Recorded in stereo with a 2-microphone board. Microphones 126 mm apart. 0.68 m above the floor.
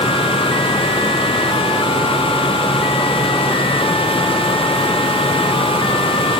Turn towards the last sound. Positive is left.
No sound to turn to.